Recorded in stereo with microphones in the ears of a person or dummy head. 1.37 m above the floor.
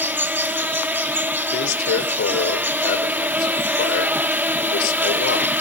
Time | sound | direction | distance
0.0 | an insect | 10° right (ahead or behind) | 0.8 m
1.5 | a man speaking | 55° left (ahead or behind) | 4 m